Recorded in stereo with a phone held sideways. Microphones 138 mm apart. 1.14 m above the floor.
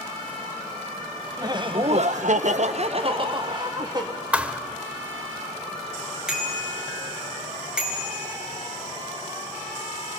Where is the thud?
10° right (ahead or behind), 1.0 m.